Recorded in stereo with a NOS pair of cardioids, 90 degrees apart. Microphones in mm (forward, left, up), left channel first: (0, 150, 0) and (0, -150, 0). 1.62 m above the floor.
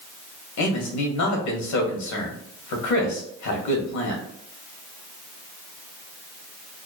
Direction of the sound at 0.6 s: 65° left.